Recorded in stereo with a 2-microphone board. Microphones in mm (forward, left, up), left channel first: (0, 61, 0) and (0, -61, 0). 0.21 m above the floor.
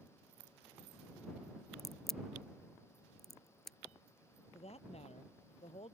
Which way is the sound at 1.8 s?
Centre (ahead or behind).